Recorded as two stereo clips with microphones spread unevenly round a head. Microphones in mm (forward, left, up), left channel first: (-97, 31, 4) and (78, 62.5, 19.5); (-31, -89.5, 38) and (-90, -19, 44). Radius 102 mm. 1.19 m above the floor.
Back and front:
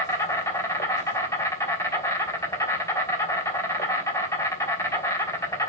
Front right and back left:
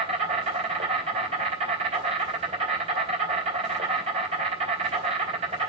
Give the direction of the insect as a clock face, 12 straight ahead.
8 o'clock.